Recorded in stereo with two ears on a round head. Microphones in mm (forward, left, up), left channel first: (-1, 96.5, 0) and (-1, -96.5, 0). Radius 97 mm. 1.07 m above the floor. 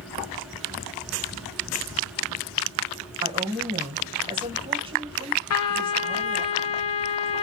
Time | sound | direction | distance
3.2 | a woman speaking | 25° right (ahead or behind) | 1.2 m
5.5 | a trumpet | 80° left | 0.7 m